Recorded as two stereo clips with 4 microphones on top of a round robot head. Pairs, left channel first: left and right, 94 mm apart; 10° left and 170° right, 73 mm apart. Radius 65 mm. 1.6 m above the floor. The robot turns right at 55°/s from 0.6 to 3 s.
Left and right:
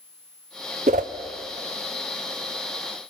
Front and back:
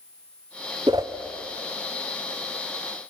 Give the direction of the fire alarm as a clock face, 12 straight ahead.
I don't hear a fire alarm.